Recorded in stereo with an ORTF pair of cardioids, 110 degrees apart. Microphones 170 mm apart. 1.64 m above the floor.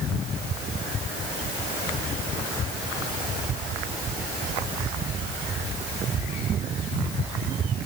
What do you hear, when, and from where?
Only background noise.